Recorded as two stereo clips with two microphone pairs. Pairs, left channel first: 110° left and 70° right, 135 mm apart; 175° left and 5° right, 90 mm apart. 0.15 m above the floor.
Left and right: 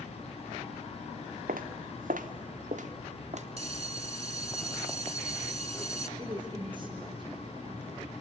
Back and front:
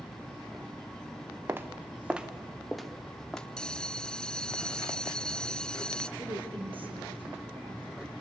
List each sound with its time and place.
1.5 s footsteps: 70° right, 1.3 m; by 3.5 s 105° right, 1.7 m
3.6 s a bell: 105° right, 0.6 m
6.2 s a woman speaking: 20° right, 4 m